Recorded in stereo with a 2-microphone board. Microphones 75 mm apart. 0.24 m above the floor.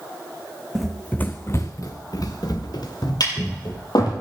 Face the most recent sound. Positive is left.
turn(degrees=70)  # may be behind; listen again after turning